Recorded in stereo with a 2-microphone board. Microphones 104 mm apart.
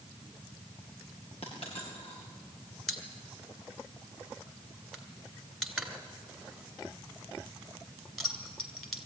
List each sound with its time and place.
1.4 s a dropped coin: 75° left (ahead or behind), 7 m
2.9 s a pop: centre (ahead or behind), 2.5 m